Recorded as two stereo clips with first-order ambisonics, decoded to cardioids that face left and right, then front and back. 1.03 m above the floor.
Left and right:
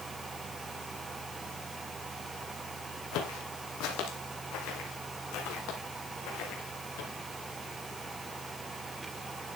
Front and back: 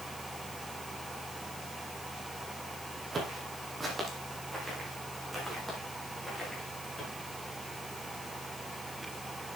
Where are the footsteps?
110° left, 2.5 m; by 7.1 s 85° left, 4 m.